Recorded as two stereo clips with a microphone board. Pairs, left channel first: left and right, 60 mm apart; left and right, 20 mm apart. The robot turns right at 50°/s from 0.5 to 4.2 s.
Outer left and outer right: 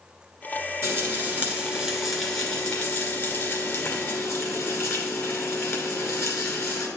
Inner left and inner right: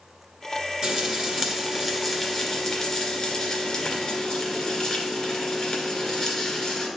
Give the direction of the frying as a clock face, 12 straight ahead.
2 o'clock.